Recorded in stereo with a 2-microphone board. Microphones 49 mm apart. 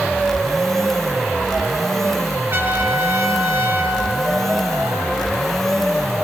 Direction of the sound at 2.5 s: 55° right (ahead or behind).